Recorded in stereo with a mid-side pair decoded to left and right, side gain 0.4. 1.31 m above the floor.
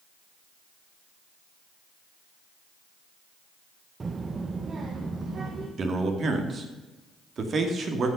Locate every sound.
4.0 s a child speaking: 35° right, 0.7 m; by 5.7 s 50° right, 1.6 m
5.8 s a man speaking: 55° right, 2.5 m